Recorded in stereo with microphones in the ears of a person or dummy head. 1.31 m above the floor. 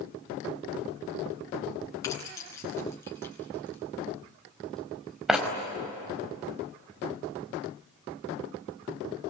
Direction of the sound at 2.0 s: 15° left (ahead or behind).